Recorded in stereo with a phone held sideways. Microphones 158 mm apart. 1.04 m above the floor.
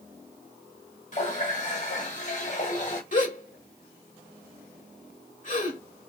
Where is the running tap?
45° left (ahead or behind), 1.5 m.